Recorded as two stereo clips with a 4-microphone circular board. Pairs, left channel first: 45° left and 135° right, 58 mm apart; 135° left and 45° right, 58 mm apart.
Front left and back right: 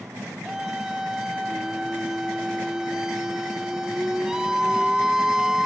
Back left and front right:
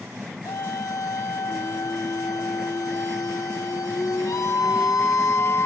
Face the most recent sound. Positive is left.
turn(degrees=145)